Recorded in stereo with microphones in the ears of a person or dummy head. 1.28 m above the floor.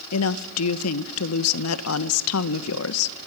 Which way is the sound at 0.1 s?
75° left (ahead or behind).